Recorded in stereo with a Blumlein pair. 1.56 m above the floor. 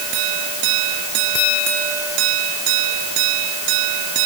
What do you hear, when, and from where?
Only background noise.